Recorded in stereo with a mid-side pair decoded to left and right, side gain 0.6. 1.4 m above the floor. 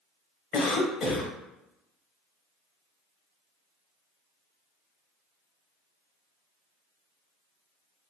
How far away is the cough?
About 1.3 m.